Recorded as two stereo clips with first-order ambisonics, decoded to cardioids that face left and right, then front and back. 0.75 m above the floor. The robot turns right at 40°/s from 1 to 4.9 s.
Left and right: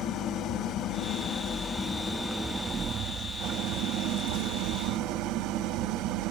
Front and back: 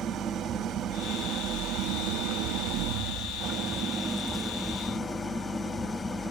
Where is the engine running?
120° left, 0.9 m; by 6.3 s 80° right, 0.9 m.